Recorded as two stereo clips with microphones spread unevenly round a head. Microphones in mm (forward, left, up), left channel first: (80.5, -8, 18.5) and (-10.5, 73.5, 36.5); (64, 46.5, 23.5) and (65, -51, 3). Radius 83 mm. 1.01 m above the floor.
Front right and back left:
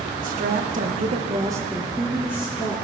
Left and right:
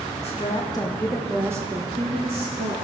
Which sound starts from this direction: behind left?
A woman speaking, at 0.2 s.